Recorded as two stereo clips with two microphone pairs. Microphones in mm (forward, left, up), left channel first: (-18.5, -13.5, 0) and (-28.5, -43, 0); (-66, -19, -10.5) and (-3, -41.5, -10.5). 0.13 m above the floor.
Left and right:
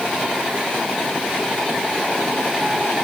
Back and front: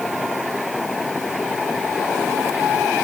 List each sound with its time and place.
Only background noise.